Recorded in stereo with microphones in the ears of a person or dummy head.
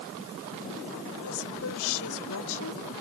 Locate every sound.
1.2 s a woman speaking: 70° left (ahead or behind)